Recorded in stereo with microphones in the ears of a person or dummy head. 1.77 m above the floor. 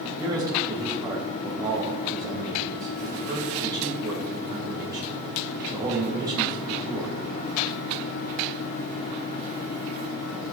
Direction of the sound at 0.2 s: 20° right (ahead or behind).